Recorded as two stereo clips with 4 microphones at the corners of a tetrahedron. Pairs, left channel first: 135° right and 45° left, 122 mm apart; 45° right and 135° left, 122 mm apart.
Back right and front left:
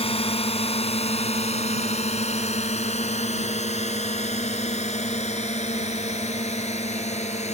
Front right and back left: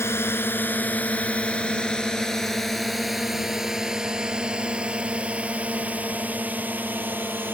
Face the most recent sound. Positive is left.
turn(degrees=-150)